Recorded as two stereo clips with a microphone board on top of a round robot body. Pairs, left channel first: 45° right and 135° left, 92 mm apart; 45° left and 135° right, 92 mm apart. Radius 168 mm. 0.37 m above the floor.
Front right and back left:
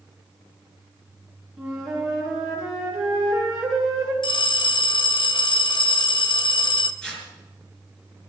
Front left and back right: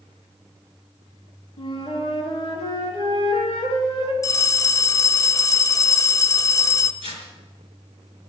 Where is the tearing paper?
40° left, 5 m.